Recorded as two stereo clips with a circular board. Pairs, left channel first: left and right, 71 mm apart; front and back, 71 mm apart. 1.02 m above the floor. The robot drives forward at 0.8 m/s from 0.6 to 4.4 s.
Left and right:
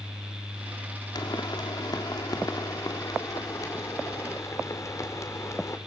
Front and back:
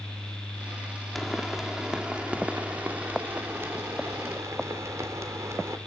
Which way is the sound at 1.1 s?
90° left.